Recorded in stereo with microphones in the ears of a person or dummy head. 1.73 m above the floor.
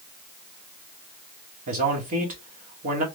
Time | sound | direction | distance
1.7 | a man speaking | 35° right (ahead or behind) | 1.1 m